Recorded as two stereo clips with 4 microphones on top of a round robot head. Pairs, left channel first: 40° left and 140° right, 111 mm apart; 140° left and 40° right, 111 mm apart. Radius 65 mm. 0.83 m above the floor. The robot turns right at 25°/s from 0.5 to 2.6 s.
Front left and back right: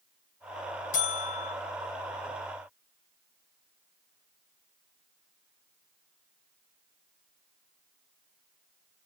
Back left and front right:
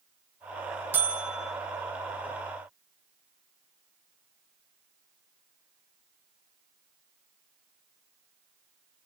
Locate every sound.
0.9 s a buzzer: 30° left, 3.5 m; by 1.6 s 45° left, 3.5 m